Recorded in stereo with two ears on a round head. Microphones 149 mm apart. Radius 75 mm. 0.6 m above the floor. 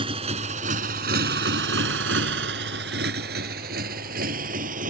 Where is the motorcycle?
35° right (ahead or behind); by 4.9 s 55° right (ahead or behind).